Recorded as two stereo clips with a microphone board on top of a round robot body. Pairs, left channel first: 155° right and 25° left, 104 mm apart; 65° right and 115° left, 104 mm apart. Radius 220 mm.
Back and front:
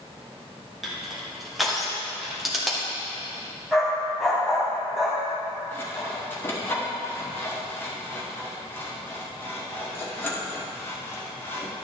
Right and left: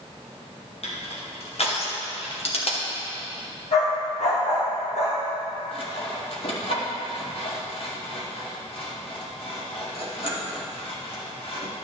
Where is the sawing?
90° right, 2 m.